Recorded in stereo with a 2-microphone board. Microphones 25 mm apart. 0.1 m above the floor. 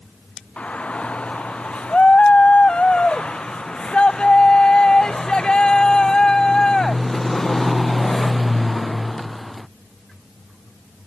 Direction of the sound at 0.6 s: 60° left (ahead or behind).